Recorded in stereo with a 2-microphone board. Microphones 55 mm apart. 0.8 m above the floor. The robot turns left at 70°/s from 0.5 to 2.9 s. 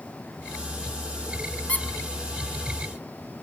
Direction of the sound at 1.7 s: 25° left (ahead or behind).